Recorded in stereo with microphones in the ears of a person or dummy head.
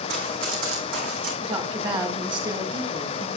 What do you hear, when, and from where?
0.1 s running footsteps: 50° right (ahead or behind), 4 m; by 1.3 s 55° right (ahead or behind), 3.5 m
1.4 s a woman speaking: 30° right (ahead or behind), 3 m